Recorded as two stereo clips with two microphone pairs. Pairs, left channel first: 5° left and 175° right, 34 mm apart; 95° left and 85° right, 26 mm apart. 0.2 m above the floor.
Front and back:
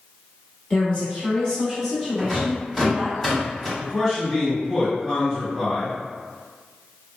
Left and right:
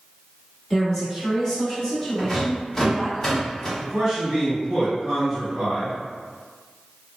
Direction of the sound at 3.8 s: 35° right.